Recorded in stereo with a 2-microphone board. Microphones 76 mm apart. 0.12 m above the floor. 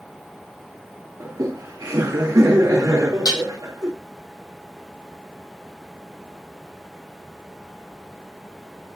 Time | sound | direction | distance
1.2 | laughter | 55° right (ahead or behind) | 2 m
3.2 | dishes clattering | 70° left (ahead or behind) | 3 m